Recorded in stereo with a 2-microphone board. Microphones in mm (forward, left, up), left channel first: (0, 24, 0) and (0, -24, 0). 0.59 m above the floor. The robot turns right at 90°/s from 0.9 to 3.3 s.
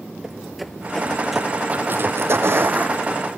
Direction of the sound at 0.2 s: 10° right (ahead or behind).